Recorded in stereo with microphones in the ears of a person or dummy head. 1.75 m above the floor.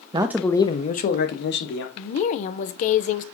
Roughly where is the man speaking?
Right.